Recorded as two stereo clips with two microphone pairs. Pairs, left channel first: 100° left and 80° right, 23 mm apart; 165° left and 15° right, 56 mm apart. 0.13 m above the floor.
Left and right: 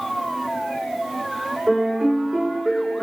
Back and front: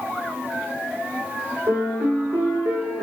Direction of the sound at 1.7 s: 60° right.